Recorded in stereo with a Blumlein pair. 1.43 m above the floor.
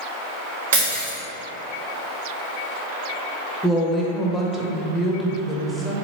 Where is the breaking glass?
60° right, 1.9 m.